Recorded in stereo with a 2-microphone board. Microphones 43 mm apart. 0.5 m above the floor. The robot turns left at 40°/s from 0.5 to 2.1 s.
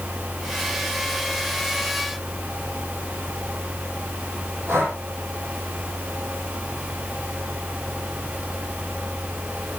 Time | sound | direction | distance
4.7 | breathing | 70° right (ahead or behind) | 7.5 m